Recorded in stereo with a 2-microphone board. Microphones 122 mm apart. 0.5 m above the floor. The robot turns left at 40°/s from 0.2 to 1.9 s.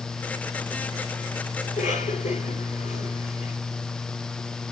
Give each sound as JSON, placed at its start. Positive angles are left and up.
{"t": 1.7, "sound": "a cough", "side_deg": 75, "distance_m": 6.0}